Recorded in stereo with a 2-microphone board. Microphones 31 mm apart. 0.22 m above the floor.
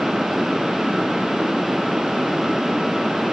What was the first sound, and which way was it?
Only background noise.